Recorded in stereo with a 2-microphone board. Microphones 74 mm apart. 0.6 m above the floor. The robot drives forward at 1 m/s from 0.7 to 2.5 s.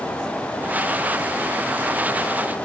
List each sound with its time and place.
Only background noise.